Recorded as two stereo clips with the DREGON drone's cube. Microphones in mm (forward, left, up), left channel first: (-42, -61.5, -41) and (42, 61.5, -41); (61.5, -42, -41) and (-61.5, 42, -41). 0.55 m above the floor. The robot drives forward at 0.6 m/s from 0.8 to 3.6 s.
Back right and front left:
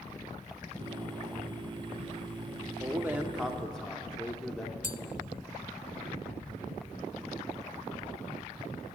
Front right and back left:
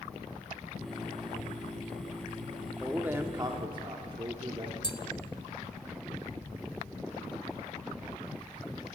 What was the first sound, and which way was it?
A man speaking, 55° left.